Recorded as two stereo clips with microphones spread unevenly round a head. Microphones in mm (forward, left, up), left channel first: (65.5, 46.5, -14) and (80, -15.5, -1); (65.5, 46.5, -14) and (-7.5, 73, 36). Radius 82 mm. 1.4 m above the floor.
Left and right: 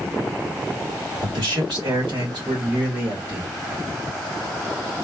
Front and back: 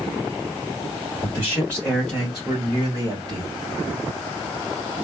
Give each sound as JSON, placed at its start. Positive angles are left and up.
{"t": 1.2, "sound": "a man speaking", "azimuth_deg": -85, "distance_m": 1.9}